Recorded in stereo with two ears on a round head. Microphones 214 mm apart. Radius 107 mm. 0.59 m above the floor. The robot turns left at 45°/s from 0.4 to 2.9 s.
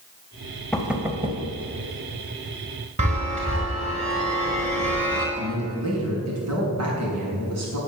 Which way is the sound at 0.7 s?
5° left (ahead or behind).